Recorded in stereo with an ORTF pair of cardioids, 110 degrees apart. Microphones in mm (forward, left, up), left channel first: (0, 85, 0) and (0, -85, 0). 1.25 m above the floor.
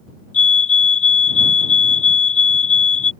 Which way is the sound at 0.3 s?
50° left.